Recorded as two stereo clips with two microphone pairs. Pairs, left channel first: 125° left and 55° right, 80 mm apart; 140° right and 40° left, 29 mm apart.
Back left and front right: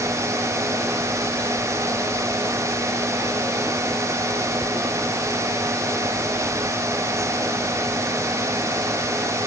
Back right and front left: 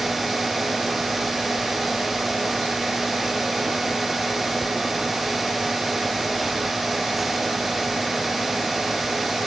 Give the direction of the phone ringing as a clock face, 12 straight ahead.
I don't hear a phone ringing.